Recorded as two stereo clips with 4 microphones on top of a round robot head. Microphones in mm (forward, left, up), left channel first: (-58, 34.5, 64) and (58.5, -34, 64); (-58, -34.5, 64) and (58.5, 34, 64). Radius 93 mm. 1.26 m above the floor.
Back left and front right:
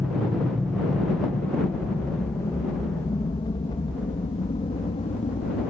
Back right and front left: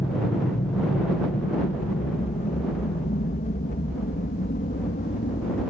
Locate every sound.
0.0 s an aircraft: 110° right; by 5.7 s 165° right